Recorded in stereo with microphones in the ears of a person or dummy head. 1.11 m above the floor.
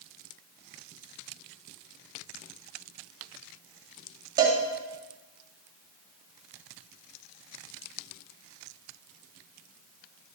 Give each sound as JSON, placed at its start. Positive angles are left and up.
{"t": 4.4, "sound": "a cowbell", "side_deg": -20, "distance_m": 1.7}